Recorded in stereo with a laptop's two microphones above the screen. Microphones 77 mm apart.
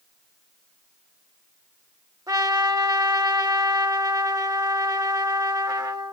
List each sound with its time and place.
2.3 s a trumpet: 50° right (ahead or behind), 1.1 m